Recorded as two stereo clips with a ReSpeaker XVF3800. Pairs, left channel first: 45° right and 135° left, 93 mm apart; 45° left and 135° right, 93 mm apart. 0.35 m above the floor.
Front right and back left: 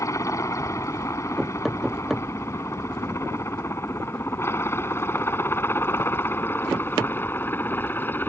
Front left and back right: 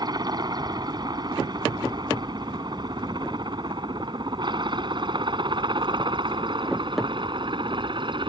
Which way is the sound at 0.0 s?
100° right.